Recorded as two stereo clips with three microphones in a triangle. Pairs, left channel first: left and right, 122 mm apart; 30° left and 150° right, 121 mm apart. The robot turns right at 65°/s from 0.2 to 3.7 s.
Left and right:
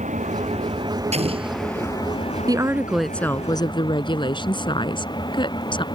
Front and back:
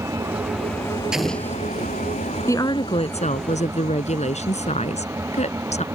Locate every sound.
0.0 s an engine running: 85° right; by 6.0 s 140° left
1.1 s an explosion: 65° right; by 1.9 s 15° right
2.5 s a woman speaking: 35° right; by 5.8 s 45° left